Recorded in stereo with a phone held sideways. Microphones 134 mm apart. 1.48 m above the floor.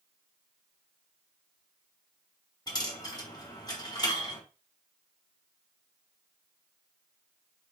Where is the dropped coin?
30° left (ahead or behind), 1.0 m.